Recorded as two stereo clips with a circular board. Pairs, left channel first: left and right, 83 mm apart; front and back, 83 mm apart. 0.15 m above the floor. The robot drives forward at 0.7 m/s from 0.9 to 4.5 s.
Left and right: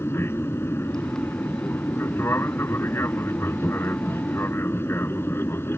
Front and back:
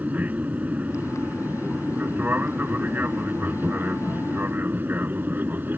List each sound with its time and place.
0.0 s an aircraft: 125° left; by 5.8 s 130° left